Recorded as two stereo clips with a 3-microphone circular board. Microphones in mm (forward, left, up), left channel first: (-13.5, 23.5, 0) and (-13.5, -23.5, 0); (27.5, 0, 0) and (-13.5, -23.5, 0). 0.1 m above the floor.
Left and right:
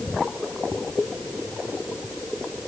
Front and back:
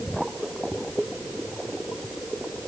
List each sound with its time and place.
Only background noise.